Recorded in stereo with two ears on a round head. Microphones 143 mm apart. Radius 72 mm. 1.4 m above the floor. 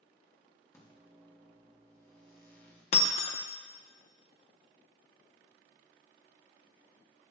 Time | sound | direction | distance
0.7 | a microwave | 20° left (ahead or behind) | 2 m
2.9 | breaking glass | 40° left (ahead or behind) | 0.5 m